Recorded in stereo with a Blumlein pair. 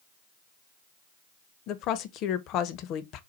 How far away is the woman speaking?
About 0.6 m.